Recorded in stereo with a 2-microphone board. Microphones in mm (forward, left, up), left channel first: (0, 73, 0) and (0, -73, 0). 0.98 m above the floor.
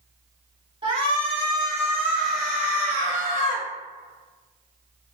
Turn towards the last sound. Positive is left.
turn(degrees=25)  # may be behind; listen again after turning